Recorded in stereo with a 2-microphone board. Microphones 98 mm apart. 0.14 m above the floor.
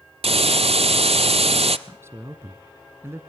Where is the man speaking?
25° right (ahead or behind), 1.2 m.